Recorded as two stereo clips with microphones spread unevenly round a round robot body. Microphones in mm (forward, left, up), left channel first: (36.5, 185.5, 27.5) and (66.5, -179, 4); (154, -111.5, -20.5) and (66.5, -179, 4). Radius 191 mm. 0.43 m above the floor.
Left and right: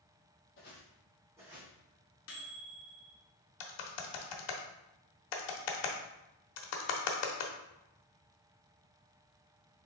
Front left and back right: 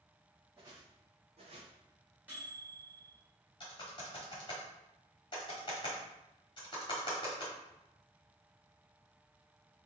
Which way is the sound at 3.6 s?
90° left.